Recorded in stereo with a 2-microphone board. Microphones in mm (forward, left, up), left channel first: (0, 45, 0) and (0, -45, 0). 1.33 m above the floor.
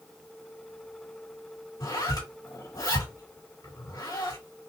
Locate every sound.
1.8 s a zipper: 45° left (ahead or behind), 2.5 m